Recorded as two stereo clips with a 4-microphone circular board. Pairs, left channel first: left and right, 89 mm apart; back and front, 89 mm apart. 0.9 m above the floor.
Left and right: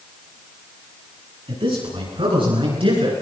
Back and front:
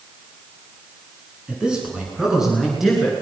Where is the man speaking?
80° right, 9.5 m; by 3.1 s 90° right, 11.5 m.